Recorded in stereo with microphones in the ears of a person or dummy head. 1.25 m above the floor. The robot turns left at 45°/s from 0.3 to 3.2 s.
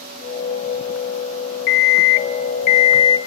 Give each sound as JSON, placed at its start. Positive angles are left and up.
{"t": 1.7, "sound": "an alarm clock", "azimuth_deg": 100, "distance_m": 0.5}